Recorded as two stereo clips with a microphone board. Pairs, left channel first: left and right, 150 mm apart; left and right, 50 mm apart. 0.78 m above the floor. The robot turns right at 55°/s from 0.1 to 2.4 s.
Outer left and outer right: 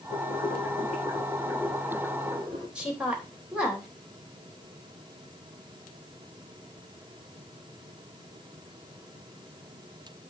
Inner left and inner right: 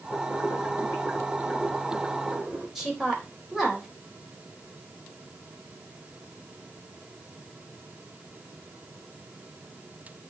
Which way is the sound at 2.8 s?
5° right (ahead or behind).